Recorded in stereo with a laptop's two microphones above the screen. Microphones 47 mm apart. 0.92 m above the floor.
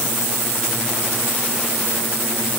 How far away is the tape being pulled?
No tape being pulled in this recording.